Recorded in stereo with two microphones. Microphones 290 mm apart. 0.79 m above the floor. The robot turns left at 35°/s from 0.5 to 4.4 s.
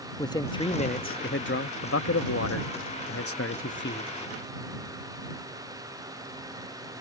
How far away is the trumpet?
No trumpet in this recording.